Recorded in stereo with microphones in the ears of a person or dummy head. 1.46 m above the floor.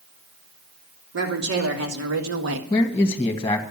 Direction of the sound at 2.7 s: 10° left (ahead or behind).